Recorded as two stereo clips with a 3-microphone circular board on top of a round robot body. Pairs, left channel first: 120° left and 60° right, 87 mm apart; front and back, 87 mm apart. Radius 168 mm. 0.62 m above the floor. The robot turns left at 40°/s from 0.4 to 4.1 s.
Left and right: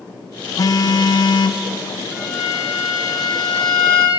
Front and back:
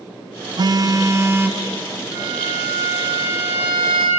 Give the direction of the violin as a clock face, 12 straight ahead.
5 o'clock.